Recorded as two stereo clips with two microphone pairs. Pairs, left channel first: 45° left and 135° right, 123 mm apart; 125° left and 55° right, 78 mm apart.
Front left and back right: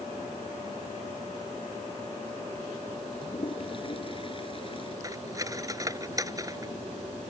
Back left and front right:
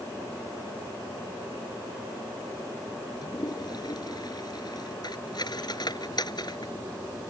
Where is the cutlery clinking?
160° left.